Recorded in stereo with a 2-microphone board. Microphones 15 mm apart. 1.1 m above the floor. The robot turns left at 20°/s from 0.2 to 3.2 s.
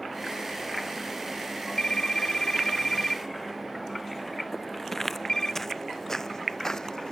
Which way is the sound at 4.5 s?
15° left (ahead or behind).